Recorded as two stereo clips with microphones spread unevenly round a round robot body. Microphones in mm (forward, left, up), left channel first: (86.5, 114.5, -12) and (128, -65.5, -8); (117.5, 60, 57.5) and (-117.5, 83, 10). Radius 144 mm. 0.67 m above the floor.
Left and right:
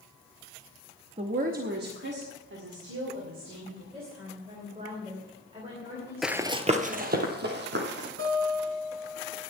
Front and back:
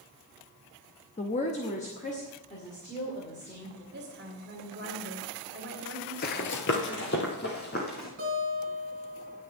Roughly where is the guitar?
Behind right.